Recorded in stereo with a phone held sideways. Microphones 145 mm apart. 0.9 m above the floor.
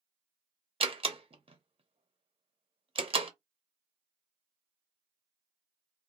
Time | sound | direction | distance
0.8 | a door slam | 40° right (ahead or behind) | 0.5 m